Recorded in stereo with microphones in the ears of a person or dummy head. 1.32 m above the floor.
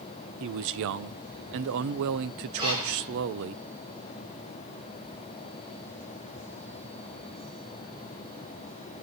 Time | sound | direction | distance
0.4 | a man speaking | 60° right (ahead or behind) | 0.5 m
2.6 | breathing | 30° right (ahead or behind) | 9.5 m